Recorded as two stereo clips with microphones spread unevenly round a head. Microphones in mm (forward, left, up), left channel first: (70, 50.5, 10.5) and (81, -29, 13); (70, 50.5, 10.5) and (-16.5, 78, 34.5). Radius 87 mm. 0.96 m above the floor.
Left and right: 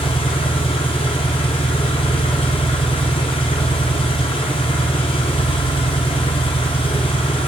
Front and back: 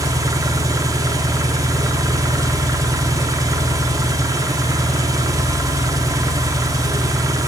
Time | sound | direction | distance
0.0 | an engine running | 120° left | 0.8 m